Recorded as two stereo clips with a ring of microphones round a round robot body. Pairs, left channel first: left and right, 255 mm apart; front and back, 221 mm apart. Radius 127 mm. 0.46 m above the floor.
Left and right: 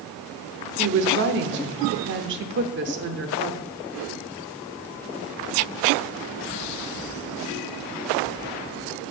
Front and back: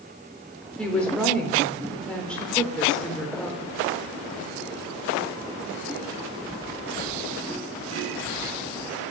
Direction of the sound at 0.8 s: 85° right.